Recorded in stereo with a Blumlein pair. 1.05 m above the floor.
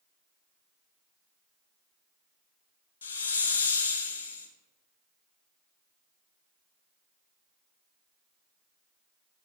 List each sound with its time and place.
3.0 s a hiss: 65° left, 0.9 m